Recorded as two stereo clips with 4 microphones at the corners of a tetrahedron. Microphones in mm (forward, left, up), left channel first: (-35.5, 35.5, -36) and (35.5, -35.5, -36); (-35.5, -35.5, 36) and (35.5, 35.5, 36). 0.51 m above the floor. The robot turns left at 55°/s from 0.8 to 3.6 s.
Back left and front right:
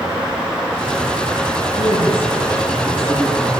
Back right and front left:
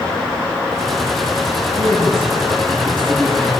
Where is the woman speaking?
175° right, 10 m; by 3.5 s 85° left, 10 m.